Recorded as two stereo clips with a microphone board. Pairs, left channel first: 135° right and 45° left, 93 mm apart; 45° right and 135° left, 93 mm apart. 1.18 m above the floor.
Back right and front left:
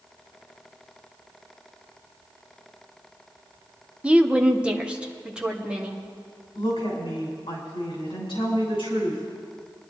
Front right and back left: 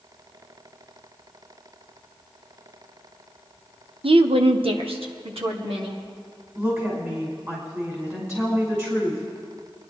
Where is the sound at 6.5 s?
165° right, 6 m.